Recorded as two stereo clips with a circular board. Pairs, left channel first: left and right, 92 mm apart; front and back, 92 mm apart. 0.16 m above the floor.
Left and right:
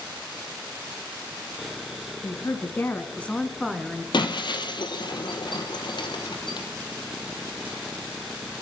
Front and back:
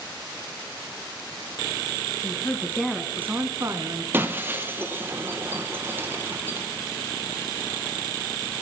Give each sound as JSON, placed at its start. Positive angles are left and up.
{"t": 2.2, "sound": "a woman speaking", "azimuth_deg": 50, "distance_m": 1.6}
{"t": 4.1, "sound": "breaking glass", "azimuth_deg": 115, "distance_m": 1.4}